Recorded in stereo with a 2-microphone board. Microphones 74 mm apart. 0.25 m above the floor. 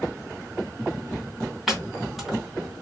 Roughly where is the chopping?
Centre.